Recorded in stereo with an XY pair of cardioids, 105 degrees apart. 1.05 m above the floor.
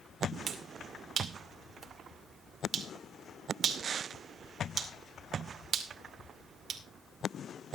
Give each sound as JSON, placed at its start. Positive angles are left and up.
{"t": 0.5, "sound": "a finger snap", "azimuth_deg": -40, "distance_m": 2.0}